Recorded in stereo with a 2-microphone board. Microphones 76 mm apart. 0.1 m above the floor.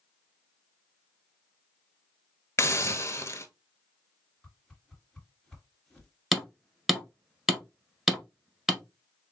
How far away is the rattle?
No rattle in this recording.